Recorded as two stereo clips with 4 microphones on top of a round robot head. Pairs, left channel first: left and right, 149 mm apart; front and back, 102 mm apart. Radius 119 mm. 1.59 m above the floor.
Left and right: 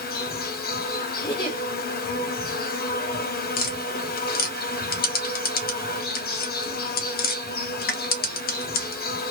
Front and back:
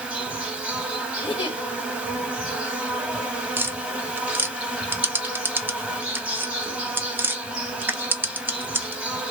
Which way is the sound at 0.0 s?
95° left.